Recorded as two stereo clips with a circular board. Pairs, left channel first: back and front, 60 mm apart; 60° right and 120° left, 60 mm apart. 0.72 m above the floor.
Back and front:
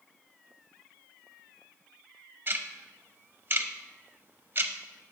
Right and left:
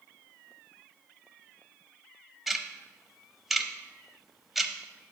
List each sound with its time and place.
2.5 s ticking: 35° left, 0.6 m